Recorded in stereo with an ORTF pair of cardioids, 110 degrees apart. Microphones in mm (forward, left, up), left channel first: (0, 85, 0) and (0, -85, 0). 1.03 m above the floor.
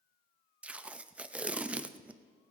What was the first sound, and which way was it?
Tape being pulled, 10° right.